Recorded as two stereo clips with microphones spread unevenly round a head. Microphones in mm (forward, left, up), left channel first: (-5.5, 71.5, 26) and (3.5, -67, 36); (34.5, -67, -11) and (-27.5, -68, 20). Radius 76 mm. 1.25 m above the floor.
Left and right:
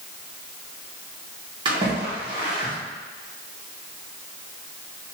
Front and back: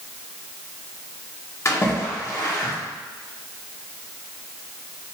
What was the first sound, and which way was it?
A splash, 25° right.